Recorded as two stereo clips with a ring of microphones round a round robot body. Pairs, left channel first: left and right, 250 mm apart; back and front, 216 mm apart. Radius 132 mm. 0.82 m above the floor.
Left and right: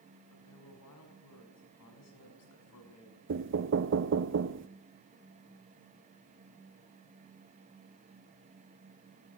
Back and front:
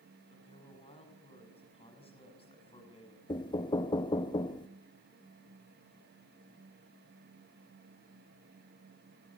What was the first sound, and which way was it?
A man speaking, 115° left.